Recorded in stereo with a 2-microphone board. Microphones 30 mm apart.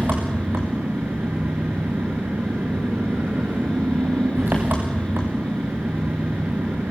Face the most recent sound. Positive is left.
turn(degrees=-85)